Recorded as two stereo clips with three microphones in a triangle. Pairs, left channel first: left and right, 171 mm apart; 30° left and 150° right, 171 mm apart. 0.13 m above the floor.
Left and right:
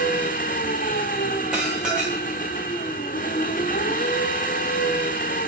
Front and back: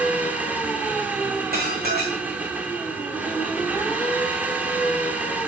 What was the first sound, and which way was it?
An engine running, 130° left.